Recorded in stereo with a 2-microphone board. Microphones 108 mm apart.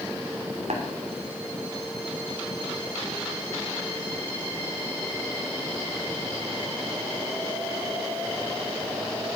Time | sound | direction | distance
0.7 | tapping | 75° right (ahead or behind) | 3 m